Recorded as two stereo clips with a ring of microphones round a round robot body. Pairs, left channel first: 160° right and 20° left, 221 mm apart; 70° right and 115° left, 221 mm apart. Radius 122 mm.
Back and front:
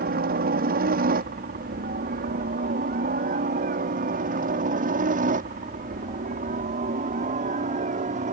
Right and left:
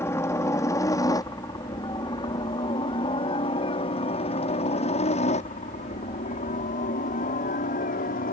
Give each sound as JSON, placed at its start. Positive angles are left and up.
{"t": 0.0, "sound": "a helicopter", "azimuth_deg": 5}